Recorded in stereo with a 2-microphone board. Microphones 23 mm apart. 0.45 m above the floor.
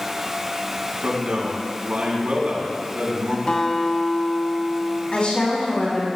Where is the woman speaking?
50° left (ahead or behind), 4 m.